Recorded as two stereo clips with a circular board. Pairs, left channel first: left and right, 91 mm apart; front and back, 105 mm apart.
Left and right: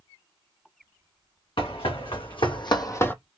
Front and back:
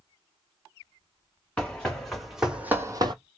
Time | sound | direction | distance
1.6 | running footsteps | 80° left | 2 m